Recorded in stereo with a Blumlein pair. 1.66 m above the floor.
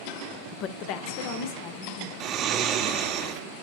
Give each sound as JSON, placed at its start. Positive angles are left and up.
{"t": 0.5, "sound": "a woman speaking", "azimuth_deg": 35, "distance_m": 0.6}
{"t": 2.2, "sound": "snoring", "azimuth_deg": -30, "distance_m": 0.8}